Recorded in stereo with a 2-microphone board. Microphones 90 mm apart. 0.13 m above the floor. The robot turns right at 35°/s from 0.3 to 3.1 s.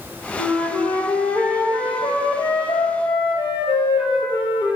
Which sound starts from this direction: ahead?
A flute, at 0.4 s.